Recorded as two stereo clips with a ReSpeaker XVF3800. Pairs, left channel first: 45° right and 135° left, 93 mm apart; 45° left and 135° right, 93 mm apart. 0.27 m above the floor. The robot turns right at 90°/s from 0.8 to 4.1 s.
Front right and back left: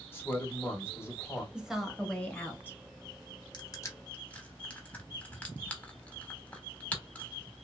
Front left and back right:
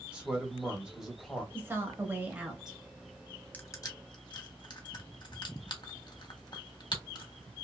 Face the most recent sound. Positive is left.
turn(degrees=30)